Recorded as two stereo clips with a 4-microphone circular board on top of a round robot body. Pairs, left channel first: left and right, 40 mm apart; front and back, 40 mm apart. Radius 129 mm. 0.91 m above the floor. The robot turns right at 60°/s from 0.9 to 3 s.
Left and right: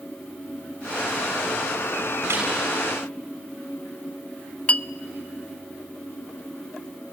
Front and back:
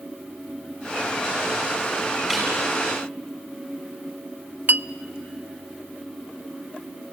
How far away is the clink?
About 0.5 m.